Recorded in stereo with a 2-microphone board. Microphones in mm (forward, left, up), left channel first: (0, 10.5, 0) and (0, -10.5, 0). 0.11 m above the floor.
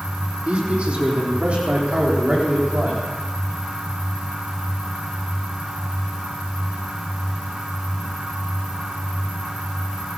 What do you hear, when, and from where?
0.5 s a man speaking: 65° right (ahead or behind), 4.5 m; by 3.0 s 70° right (ahead or behind), 7 m